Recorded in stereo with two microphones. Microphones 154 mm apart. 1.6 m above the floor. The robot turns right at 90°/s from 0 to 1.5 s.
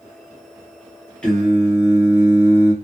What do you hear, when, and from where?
1.2 s singing: 10° left (ahead or behind), 1.2 m; by 2.7 s 10° right (ahead or behind), 1.2 m